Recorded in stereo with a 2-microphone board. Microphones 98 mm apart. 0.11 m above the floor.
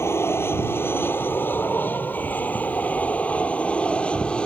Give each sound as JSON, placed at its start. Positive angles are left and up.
{"t": 0.0, "sound": "an aircraft", "side_deg": 25}